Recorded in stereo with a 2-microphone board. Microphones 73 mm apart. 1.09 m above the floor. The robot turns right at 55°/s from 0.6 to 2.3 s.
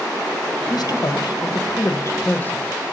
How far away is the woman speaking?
About 0.9 m.